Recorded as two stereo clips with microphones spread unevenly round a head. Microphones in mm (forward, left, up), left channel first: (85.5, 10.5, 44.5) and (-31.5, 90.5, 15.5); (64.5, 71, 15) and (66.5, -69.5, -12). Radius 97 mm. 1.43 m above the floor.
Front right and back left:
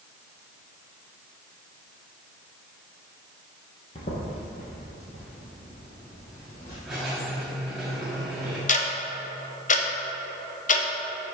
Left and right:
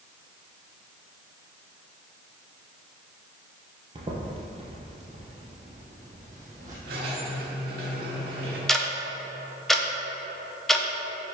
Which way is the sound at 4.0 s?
40° right.